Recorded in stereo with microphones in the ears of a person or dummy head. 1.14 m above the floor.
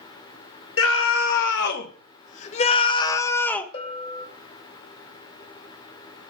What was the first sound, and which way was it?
A scream, 75° left (ahead or behind).